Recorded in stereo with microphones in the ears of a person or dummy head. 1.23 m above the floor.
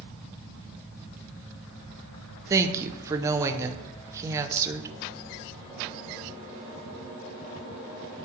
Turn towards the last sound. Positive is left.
turn(degrees=-15)  # may be behind; listen again after turning